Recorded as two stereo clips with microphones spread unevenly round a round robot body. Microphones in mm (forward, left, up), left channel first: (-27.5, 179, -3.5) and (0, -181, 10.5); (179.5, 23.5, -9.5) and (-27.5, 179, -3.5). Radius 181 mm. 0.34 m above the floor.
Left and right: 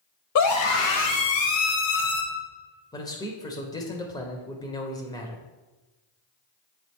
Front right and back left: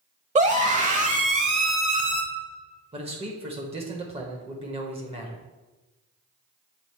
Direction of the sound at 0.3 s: 90° left.